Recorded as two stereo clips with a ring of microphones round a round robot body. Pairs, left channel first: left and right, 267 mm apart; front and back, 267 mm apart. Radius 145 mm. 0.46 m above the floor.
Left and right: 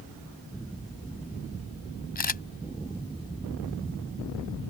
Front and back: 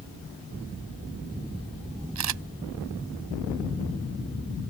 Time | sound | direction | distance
2.1 | a camera shutter | 145° left | ?